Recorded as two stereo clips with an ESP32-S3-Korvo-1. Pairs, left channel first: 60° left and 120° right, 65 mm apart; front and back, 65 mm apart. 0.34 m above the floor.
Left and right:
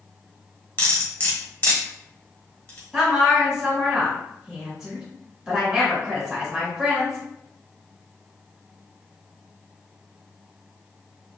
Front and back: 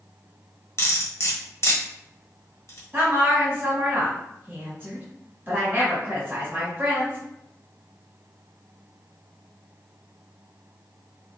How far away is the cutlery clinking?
About 0.9 m.